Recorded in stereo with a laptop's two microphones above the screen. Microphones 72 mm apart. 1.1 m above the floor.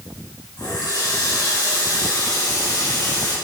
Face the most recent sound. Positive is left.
turn(degrees=75)  # may be behind; listen again after turning